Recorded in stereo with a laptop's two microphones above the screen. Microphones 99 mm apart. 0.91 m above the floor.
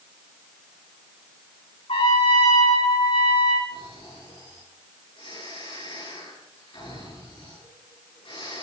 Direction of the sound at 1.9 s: 70° left (ahead or behind).